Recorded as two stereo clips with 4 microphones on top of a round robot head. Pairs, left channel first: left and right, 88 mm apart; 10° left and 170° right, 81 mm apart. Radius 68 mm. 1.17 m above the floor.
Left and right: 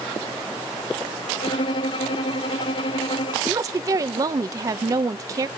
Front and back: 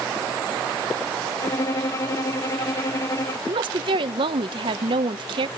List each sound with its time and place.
1.4 s a violin: 60° left, 1.0 m
3.5 s a woman speaking: 145° right, 0.9 m